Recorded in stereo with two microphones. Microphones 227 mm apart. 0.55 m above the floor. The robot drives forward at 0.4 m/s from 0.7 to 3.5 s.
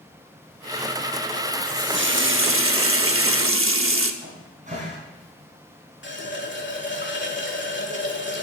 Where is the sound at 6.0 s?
55° left (ahead or behind), 1.6 m.